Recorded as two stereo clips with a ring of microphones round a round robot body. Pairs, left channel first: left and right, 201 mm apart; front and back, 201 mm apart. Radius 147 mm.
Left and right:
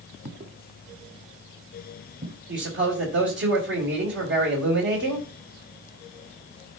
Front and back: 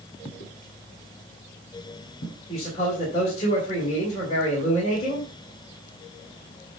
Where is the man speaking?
65° right, 3 m.